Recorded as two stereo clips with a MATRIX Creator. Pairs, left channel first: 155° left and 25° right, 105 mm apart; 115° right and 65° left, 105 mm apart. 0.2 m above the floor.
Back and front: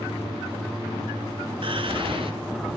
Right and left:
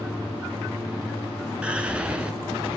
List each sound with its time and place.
1.6 s whispering: 10° right, 2 m